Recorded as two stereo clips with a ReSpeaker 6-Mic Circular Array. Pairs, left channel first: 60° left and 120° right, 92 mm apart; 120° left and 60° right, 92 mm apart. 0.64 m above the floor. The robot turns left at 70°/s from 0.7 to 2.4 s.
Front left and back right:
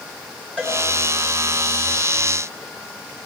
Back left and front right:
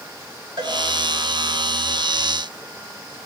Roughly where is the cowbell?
Ahead.